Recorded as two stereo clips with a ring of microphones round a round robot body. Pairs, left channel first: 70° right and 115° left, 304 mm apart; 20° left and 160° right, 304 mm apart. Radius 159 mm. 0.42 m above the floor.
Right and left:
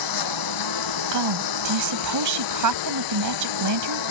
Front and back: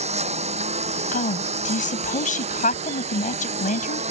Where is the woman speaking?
90° left.